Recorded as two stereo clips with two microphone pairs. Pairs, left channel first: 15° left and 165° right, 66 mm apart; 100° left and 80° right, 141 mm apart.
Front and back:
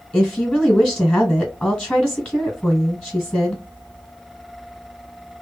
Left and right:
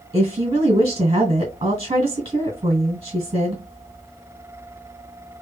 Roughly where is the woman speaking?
Ahead right.